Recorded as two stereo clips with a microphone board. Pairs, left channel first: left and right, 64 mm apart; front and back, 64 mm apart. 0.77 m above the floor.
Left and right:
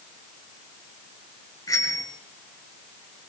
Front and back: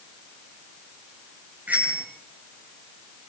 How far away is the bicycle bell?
About 9 m.